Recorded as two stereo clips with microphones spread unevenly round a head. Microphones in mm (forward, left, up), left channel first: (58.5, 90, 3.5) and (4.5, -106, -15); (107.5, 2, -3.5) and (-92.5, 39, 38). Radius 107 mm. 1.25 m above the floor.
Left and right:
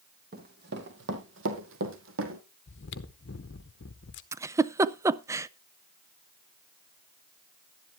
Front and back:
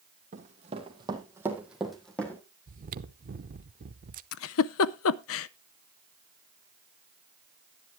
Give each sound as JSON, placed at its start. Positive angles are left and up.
{"t": 0.3, "sound": "running footsteps", "azimuth_deg": -150, "distance_m": 2.0}
{"t": 2.7, "sound": "chewing", "azimuth_deg": 115, "distance_m": 0.8}
{"t": 4.3, "sound": "a giggle", "azimuth_deg": -30, "distance_m": 0.5}